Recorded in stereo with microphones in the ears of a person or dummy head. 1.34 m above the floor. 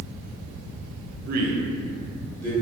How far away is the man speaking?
About 0.5 m.